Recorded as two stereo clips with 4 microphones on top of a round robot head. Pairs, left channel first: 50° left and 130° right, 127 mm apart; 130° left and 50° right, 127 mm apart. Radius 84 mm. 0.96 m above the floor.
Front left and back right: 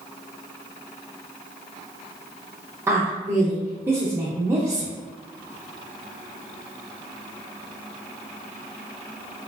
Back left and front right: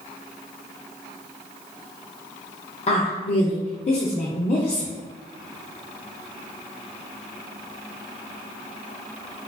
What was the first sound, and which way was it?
A woman speaking, 160° left.